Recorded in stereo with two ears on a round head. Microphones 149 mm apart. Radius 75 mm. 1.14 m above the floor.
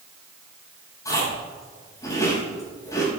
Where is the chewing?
20° left (ahead or behind), 6 m.